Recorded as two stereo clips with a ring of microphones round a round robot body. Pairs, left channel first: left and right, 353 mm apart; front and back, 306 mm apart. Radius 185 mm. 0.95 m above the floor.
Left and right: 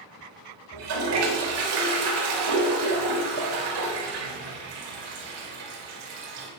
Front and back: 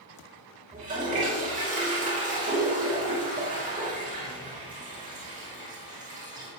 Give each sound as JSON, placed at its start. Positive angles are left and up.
{"t": 0.7, "sound": "a toilet flushing", "azimuth_deg": -110, "distance_m": 4.5}